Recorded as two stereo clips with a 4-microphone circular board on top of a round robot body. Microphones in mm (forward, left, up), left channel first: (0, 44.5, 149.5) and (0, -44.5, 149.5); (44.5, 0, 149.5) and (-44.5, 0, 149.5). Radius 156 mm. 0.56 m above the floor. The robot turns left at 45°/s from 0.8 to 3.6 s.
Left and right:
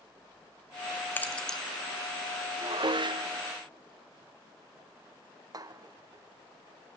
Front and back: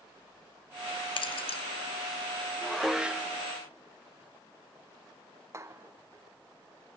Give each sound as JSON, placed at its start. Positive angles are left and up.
{"t": 1.2, "sound": "keys jangling", "azimuth_deg": 25, "distance_m": 1.5}
{"t": 2.6, "sound": "dishes clattering", "azimuth_deg": -85, "distance_m": 0.8}